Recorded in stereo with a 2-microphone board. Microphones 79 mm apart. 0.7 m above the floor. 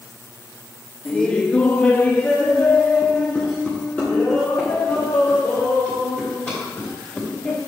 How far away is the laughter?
About 1.0 m.